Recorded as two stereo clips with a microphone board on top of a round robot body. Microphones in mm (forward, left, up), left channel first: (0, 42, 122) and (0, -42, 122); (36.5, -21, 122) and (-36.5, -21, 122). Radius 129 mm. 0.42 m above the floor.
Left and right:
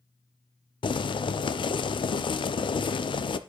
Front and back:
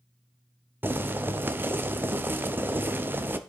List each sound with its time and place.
0.8 s boiling: 115° left, 0.6 m